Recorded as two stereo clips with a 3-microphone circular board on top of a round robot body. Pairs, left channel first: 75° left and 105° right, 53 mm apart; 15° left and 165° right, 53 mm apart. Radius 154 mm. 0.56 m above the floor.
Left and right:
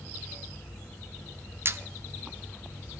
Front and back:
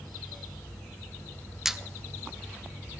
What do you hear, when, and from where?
1.6 s a squeak: 85° right, 0.7 m